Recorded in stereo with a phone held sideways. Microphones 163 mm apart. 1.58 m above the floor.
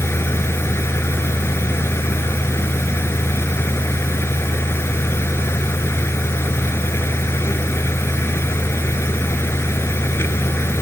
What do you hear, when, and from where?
0.0 s a fan: 15° left (ahead or behind)